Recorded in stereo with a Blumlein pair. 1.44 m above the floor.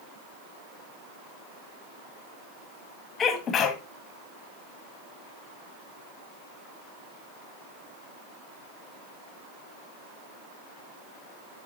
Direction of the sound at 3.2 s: 25° left.